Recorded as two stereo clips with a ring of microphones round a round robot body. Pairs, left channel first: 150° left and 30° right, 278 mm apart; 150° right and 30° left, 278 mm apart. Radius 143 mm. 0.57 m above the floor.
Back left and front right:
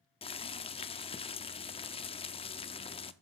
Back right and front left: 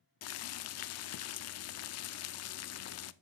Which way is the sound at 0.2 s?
145° right.